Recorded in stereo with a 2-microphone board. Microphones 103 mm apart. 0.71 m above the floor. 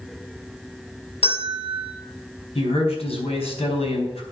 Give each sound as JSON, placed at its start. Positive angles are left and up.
{"t": 1.2, "sound": "a bell", "side_deg": 70, "distance_m": 4.5}
{"t": 2.5, "sound": "a man speaking", "side_deg": 75, "distance_m": 4.0}